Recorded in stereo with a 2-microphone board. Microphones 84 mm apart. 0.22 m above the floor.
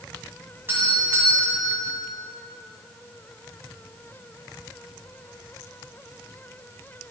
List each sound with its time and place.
0.7 s a doorbell: 30° right (ahead or behind), 2.0 m